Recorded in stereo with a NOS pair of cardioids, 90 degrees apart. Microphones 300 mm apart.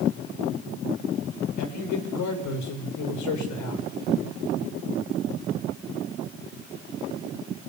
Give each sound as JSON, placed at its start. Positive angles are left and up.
{"t": 1.6, "sound": "a man speaking", "azimuth_deg": 70, "distance_m": 6.5}